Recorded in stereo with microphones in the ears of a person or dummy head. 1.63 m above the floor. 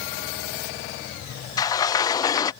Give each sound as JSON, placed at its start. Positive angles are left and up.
{"t": 1.6, "sound": "a sliding door", "side_deg": 20}